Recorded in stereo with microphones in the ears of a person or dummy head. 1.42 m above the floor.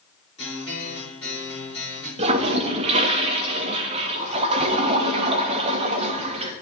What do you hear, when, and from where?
0.4 s a guitar: 30° left (ahead or behind), 4.5 m
2.2 s a toilet flushing: 35° right (ahead or behind), 0.8 m